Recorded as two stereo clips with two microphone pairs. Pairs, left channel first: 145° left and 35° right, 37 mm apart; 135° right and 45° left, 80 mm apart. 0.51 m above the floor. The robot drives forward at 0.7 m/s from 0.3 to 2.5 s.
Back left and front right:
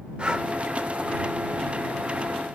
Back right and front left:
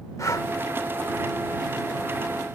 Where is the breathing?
95° right, 0.7 m; by 0.5 s 105° right, 0.8 m.